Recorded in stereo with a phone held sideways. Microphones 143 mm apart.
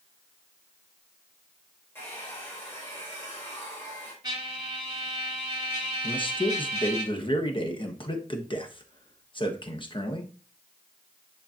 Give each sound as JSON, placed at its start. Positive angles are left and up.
{"t": 1.9, "sound": "a hair dryer", "side_deg": 20, "distance_m": 3.0}
{"t": 4.2, "sound": "a trumpet", "side_deg": -30, "distance_m": 1.7}
{"t": 6.0, "sound": "a man speaking", "side_deg": 35, "distance_m": 1.1}